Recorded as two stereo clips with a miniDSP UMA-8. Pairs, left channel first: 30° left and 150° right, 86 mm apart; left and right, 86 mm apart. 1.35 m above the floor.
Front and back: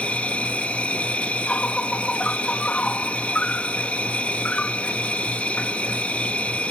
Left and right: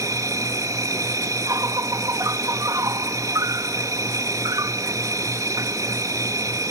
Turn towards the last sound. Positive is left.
turn(degrees=-45)